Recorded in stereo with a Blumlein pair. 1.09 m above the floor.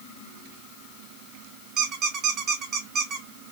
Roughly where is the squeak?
Ahead right.